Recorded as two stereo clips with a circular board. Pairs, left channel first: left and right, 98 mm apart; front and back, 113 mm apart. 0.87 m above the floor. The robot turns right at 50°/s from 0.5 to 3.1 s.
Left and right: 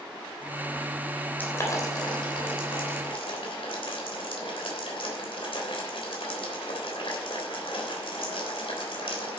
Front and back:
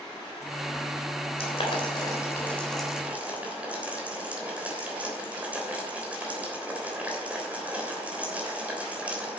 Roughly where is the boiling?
Ahead.